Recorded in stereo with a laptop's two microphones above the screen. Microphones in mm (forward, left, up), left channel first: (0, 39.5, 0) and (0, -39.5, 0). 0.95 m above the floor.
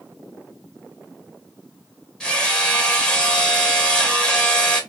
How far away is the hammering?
About 1.3 m.